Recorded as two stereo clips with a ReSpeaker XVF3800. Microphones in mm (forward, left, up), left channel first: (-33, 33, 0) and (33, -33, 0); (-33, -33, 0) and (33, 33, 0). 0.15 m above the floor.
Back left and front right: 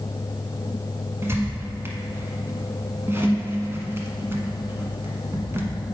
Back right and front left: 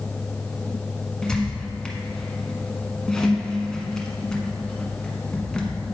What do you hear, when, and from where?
1.2 s a squeak: 60° right, 1.1 m